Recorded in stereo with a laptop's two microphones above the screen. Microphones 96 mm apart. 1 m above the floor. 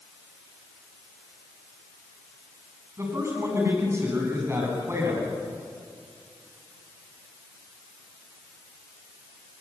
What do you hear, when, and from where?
3.0 s a man speaking: 30° right (ahead or behind), 6.5 m